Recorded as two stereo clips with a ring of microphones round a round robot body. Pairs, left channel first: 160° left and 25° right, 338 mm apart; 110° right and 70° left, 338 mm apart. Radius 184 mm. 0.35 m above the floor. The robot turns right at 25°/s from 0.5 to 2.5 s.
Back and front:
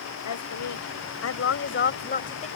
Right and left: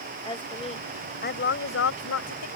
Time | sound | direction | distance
0.2 | a woman speaking | 175° left | ?